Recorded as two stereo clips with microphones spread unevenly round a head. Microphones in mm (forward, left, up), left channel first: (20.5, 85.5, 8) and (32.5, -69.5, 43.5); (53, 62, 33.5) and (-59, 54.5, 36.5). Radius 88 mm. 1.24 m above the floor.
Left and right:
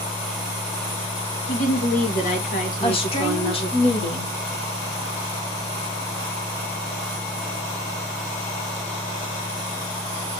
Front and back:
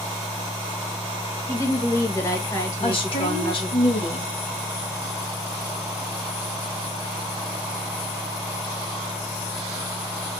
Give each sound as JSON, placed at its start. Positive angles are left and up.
{"t": 1.5, "sound": "a woman speaking", "azimuth_deg": 65, "distance_m": 1.8}
{"t": 2.8, "sound": "a woman speaking", "azimuth_deg": 45, "distance_m": 1.8}